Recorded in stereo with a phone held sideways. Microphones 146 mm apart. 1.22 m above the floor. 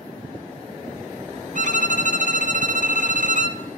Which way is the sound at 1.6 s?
60° right (ahead or behind).